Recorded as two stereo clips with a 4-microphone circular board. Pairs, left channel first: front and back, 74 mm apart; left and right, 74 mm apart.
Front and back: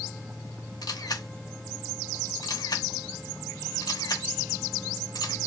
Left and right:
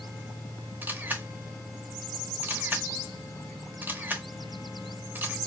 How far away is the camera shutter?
About 0.8 m.